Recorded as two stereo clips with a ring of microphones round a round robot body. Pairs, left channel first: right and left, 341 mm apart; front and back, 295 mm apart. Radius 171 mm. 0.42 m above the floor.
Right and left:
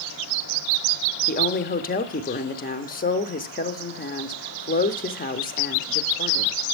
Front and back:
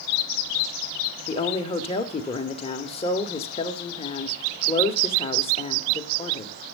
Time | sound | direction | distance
1.3 | a woman speaking | 55° right | 0.8 m